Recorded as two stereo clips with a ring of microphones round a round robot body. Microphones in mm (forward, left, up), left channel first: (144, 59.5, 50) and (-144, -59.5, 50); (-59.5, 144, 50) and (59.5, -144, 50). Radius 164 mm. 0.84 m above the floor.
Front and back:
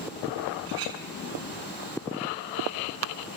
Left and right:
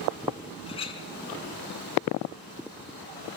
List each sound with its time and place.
0.7 s a clink: 175° right, 6.5 m